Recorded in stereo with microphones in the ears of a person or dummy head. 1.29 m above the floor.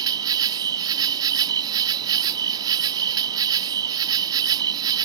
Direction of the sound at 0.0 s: 15° right (ahead or behind).